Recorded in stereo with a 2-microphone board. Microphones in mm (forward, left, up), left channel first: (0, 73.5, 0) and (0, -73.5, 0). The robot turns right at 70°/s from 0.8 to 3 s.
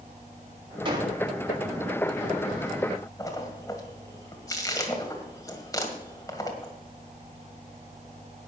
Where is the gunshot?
35° right (ahead or behind), 2 m; by 1.2 s 10° right (ahead or behind), 2 m.